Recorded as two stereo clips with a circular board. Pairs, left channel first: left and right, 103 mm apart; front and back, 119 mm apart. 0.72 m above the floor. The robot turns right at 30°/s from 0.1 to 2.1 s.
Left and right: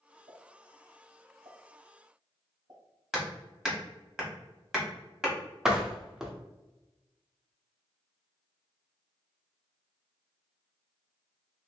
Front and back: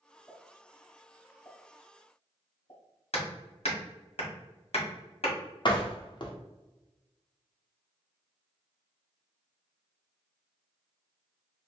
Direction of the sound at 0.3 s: 100° right.